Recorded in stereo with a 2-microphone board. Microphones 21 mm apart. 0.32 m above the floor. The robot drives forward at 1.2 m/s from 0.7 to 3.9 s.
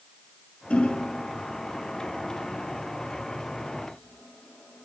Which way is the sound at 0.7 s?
75° left (ahead or behind).